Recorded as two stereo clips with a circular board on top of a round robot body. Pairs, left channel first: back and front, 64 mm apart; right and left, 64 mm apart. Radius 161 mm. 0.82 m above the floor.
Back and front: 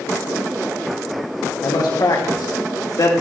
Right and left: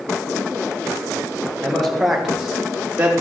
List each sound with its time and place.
1.6 s a man speaking: 175° right, 4 m; by 3.1 s 160° left, 3.5 m